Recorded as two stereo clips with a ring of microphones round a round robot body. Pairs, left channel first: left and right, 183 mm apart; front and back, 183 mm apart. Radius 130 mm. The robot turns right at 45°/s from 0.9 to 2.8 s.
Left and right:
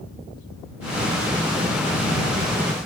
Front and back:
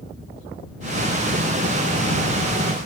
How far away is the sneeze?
No sneeze in this recording.